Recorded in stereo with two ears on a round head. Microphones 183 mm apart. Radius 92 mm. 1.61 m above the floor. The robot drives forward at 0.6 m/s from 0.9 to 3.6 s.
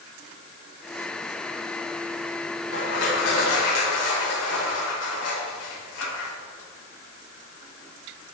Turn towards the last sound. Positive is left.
turn(degrees=90)